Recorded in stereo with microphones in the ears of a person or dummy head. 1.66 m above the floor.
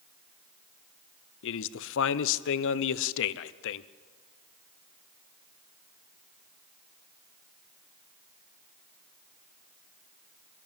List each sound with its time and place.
1.4 s a man speaking: 70° left (ahead or behind), 0.8 m